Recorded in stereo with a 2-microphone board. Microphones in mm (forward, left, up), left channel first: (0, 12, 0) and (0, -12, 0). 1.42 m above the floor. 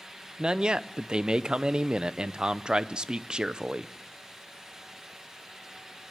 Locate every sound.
0.4 s a man speaking: 40° right (ahead or behind), 0.7 m